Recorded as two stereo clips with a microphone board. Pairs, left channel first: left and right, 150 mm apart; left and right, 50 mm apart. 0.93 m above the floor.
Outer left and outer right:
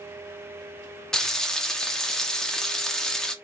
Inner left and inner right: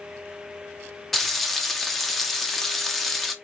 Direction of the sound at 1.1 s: 5° left (ahead or behind).